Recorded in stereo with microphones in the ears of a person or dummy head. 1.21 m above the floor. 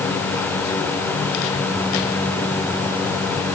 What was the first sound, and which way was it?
Only background noise.